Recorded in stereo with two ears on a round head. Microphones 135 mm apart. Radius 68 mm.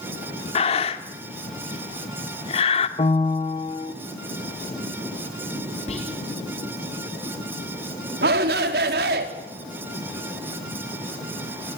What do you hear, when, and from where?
0.6 s breathing: 40° left (ahead or behind), 2 m
3.0 s a piano: 35° left (ahead or behind), 1.4 m
5.9 s whispering: 45° left (ahead or behind), 6.5 m
8.2 s a shout: 80° right, 4.5 m